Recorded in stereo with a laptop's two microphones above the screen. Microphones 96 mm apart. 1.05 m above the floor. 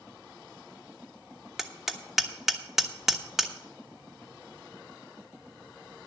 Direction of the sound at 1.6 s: 5° right (ahead or behind).